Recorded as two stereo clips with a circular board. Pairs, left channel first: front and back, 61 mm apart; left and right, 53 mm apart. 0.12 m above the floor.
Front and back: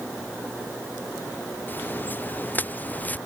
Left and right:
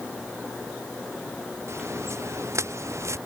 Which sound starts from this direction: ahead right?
Footsteps, at 1.7 s.